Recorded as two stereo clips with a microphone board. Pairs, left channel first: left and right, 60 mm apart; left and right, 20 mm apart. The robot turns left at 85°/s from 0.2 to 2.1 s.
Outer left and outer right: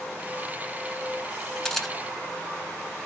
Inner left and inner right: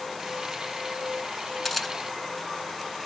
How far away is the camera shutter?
About 0.6 m.